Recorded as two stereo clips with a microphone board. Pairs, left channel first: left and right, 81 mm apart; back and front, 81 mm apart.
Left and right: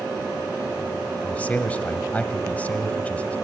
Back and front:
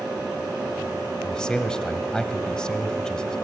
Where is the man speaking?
120° left, 1.2 m.